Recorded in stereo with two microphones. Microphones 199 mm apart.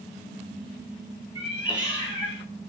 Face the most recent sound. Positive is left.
turn(degrees=30)  # may be behind; listen again after turning